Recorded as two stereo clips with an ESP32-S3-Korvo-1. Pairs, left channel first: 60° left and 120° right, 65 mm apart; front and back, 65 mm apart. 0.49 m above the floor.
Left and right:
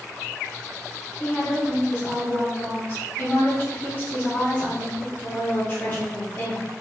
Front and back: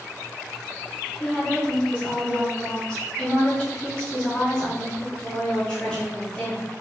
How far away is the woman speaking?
About 0.8 m.